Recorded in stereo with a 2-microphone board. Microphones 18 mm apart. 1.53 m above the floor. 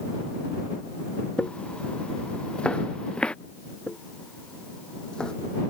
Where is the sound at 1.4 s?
70° left (ahead or behind); by 3.4 s 60° left (ahead or behind).